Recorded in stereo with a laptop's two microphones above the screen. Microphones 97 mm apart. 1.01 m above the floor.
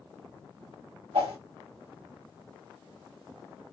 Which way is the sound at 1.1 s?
75° right (ahead or behind).